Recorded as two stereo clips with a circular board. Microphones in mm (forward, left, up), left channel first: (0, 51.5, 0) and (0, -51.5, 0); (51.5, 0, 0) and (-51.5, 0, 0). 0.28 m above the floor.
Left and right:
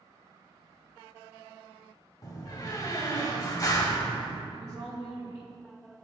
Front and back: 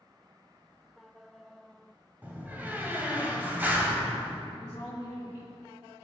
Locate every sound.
2.2 s a door slam: 115° left, 1.1 m
4.5 s a woman speaking: 45° right, 2 m